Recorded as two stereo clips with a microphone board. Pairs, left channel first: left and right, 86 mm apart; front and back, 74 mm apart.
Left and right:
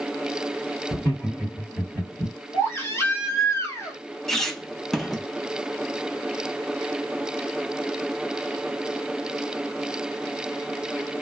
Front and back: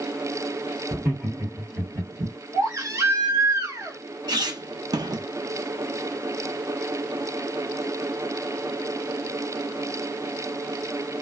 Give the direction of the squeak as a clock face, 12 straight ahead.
6 o'clock.